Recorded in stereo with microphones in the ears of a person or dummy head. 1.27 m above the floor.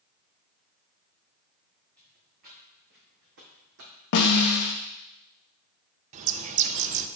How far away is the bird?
About 0.7 m.